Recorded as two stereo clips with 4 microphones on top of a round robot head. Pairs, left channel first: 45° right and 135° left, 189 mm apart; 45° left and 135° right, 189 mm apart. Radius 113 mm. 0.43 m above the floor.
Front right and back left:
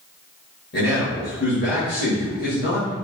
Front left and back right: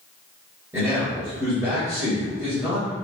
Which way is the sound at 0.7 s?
60° right.